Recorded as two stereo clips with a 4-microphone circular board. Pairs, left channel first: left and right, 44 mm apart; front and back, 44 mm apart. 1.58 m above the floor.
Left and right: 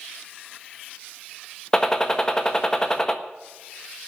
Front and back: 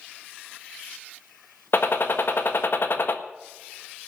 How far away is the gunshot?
About 1.3 m.